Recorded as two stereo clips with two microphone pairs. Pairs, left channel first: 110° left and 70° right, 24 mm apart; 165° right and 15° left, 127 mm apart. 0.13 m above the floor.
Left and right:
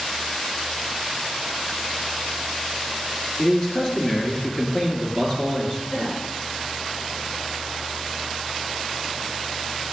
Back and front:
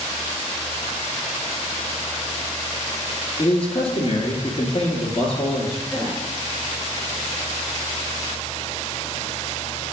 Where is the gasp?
105° left, 2.5 m.